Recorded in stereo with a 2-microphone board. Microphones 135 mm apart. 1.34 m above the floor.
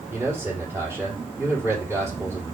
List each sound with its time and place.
0.1 s a man speaking: 10° right (ahead or behind), 4 m